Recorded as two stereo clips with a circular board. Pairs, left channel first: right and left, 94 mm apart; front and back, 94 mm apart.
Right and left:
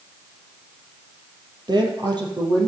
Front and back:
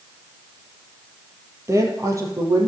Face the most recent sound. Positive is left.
turn(degrees=125)